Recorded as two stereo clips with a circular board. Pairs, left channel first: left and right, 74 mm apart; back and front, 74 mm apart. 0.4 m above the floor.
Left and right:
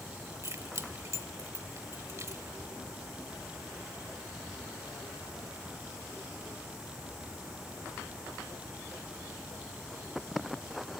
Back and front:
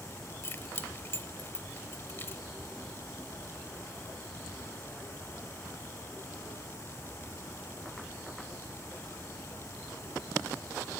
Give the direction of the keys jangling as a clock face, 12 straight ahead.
4 o'clock.